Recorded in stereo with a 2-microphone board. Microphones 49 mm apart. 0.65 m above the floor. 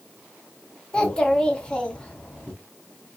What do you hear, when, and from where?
0.9 s a child speaking: 20° left (ahead or behind), 0.8 m